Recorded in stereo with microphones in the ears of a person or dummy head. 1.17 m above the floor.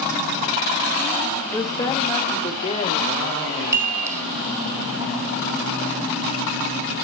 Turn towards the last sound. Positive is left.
turn(degrees=-20)  # may be behind; listen again after turning